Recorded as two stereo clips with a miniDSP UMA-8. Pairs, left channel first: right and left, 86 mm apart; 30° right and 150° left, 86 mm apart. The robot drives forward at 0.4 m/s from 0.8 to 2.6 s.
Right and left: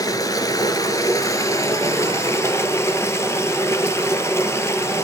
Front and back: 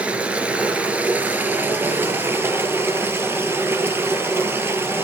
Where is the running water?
135° right, 1.9 m; by 5.0 s 150° right, 2.5 m.